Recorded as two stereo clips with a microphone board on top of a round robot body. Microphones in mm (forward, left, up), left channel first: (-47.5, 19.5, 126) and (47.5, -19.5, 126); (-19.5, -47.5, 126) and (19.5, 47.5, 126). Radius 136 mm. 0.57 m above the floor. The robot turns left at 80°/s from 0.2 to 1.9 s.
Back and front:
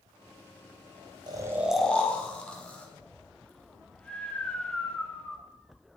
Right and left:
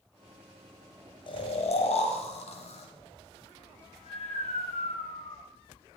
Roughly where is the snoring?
Right.